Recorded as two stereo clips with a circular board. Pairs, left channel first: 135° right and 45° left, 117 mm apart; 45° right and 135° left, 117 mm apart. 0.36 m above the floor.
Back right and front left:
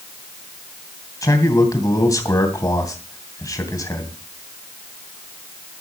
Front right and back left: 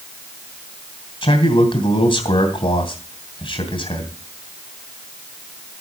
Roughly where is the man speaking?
Right.